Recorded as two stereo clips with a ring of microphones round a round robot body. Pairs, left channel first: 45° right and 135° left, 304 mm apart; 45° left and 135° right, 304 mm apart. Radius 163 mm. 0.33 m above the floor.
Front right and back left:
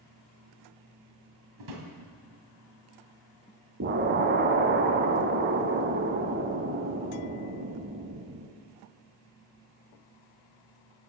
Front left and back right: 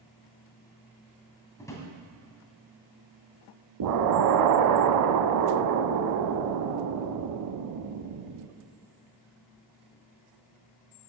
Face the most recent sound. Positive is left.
turn(degrees=-165)